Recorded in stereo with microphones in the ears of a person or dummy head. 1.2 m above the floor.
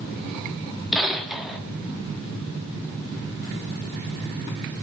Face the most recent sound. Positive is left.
turn(degrees=0)  # may be behind; listen again after turning